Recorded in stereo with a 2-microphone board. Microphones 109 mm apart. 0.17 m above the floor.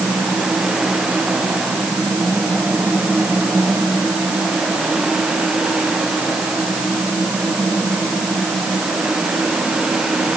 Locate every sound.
Only background noise.